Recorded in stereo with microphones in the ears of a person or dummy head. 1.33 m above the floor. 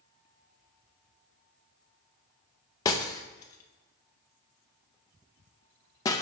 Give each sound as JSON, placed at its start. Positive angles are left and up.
{"t": 2.9, "sound": "breaking glass", "side_deg": 15, "distance_m": 0.6}